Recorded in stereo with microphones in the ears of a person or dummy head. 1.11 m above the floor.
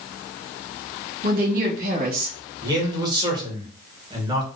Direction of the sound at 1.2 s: 55° right (ahead or behind).